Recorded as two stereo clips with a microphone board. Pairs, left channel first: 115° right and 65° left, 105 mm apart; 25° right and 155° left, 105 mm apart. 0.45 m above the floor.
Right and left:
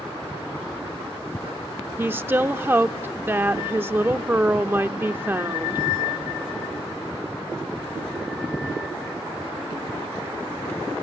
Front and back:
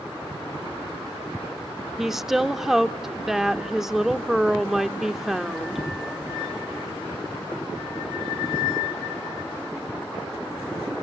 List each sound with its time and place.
2.0 s a woman speaking: 75° left, 0.7 m